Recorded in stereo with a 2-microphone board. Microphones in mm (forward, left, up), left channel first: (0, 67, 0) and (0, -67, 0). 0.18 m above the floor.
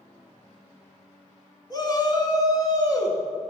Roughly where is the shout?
Left.